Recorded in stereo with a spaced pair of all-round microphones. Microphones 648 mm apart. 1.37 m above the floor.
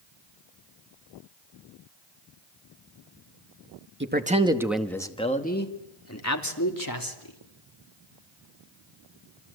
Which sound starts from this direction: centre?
A man speaking, at 4.0 s.